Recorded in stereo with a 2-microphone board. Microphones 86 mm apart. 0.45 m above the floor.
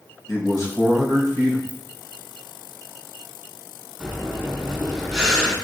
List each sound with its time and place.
0.3 s a man speaking: 40° left (ahead or behind), 2.5 m
1.7 s a ringtone: 45° right (ahead or behind), 1.3 m
4.0 s breathing: 5° left (ahead or behind), 2 m